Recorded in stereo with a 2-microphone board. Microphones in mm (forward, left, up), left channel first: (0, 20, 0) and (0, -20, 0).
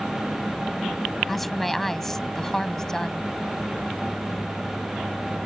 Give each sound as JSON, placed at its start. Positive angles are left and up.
{"t": 1.3, "sound": "a woman speaking", "side_deg": 0}